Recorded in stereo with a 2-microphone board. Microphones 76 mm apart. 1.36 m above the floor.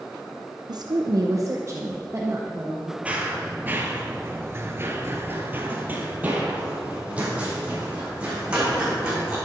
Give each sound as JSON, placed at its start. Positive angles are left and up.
{"t": 0.7, "sound": "a woman speaking", "side_deg": -65, "distance_m": 0.7}
{"t": 3.0, "sound": "running footsteps", "side_deg": -15, "distance_m": 2.0}